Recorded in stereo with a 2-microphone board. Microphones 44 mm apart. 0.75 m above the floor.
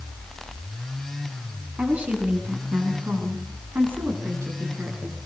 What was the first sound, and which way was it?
A woman speaking, 35° right (ahead or behind).